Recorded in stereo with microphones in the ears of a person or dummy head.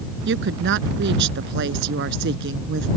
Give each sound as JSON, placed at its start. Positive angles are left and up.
{"t": 0.2, "sound": "a woman speaking", "side_deg": -70}